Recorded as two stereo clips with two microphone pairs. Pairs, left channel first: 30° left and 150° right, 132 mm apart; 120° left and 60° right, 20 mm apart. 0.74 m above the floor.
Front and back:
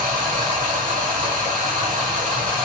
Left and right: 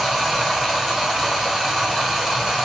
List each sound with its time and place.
0.0 s running water: 150° right, 1.0 m